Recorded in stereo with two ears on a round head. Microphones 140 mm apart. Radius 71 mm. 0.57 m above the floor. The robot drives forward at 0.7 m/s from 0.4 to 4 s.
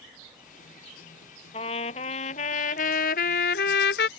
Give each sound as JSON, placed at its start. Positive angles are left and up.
{"t": 1.5, "sound": "a trumpet", "side_deg": 40}